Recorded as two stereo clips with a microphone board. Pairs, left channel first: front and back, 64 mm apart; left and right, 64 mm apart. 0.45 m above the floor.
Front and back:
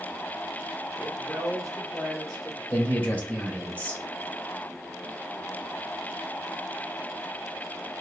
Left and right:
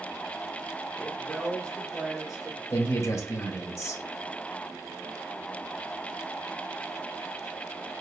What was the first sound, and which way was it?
A man speaking, 115° left.